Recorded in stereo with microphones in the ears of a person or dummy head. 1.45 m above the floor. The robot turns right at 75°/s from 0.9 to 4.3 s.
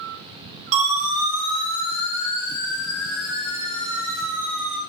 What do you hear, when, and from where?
0.7 s a siren: 40° right (ahead or behind), 7 m; by 4.8 s 10° right (ahead or behind), 4.5 m